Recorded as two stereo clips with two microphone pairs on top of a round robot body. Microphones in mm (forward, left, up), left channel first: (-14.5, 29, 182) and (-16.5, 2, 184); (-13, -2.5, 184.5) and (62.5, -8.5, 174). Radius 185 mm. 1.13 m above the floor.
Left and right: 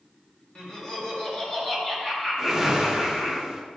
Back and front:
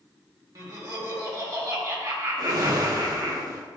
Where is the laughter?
30° left, 1.8 m.